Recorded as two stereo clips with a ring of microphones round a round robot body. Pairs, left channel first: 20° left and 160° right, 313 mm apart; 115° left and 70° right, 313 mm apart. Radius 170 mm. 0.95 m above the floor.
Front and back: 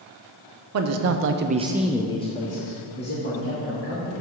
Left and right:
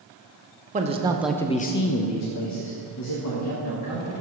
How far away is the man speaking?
About 0.7 m.